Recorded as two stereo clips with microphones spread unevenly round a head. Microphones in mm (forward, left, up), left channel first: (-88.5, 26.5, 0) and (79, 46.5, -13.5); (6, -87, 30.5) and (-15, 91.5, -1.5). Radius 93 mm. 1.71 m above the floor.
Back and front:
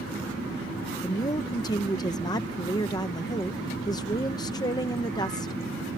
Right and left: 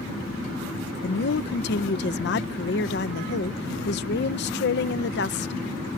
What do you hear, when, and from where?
1.0 s a woman speaking: 105° right